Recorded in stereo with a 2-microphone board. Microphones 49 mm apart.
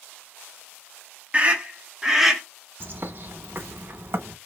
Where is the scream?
30° right (ahead or behind), 1.1 m; by 2.4 s 5° right (ahead or behind), 1.1 m.